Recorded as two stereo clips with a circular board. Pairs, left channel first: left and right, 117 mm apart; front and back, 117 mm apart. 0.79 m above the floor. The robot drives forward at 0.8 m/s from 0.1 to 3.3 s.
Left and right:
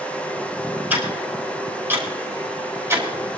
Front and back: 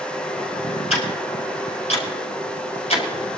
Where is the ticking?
15° right, 6 m; by 3.1 s 20° right, 4 m.